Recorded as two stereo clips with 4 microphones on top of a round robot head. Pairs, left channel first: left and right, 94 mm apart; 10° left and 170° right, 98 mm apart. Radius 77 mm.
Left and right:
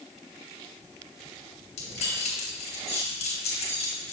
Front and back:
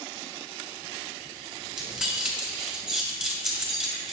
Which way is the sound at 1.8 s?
105° left.